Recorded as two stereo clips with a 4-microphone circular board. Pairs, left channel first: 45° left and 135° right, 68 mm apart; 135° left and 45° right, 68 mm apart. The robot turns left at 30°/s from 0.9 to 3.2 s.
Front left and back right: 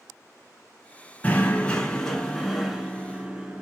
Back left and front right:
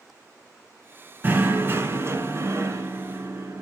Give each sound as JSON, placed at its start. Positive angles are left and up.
{"t": 1.2, "sound": "knocking", "azimuth_deg": -10, "distance_m": 1.3}